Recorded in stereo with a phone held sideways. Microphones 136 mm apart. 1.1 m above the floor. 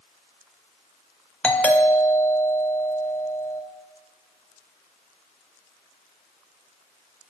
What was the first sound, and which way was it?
A doorbell, 10° left (ahead or behind).